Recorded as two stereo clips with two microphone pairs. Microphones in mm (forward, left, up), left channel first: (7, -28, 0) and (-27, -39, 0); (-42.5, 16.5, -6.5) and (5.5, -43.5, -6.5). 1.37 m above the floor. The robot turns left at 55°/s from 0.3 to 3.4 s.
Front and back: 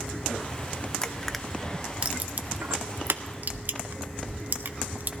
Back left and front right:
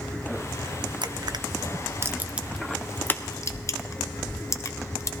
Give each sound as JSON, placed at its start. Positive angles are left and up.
{"t": 1.0, "sound": "crushing", "azimuth_deg": -50, "distance_m": 0.5}